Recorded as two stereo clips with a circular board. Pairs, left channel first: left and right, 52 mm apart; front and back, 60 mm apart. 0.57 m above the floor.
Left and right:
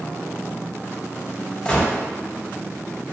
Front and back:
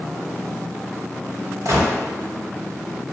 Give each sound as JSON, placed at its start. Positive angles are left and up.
{"t": 1.6, "sound": "a gunshot", "azimuth_deg": 160, "distance_m": 0.7}